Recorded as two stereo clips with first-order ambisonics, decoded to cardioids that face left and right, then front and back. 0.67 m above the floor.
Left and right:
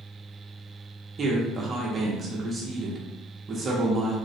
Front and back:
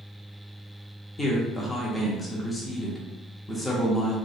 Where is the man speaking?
65° right, 0.7 m.